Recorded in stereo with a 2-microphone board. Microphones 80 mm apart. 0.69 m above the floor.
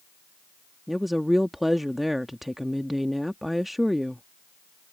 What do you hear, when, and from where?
0.9 s a woman speaking: centre (ahead or behind)